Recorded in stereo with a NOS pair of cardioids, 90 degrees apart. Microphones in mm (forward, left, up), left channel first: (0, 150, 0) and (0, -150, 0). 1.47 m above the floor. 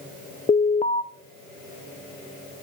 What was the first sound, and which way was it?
An alarm, 20° left.